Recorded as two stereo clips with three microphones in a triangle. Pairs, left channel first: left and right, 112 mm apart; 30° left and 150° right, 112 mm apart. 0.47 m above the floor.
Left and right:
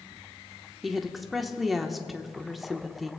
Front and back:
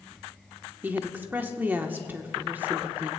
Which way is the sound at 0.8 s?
Straight behind.